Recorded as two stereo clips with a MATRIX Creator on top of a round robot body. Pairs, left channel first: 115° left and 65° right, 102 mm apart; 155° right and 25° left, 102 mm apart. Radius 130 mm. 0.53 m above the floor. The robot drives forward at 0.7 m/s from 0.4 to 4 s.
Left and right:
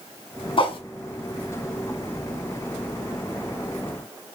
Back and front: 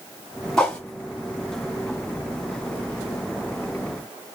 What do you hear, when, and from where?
0.6 s a whoosh: 120° left, 2 m; by 0.8 s 125° left, 2 m